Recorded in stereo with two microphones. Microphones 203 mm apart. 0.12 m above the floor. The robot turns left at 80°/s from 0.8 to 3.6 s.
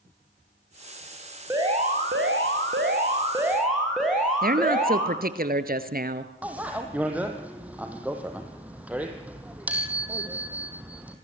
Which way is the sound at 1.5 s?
15° right.